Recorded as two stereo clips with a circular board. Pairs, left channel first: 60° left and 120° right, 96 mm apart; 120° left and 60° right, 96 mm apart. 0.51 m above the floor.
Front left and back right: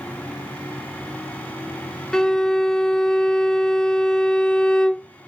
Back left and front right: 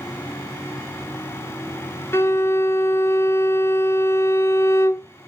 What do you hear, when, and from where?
2.1 s a violin: 135° left, 0.5 m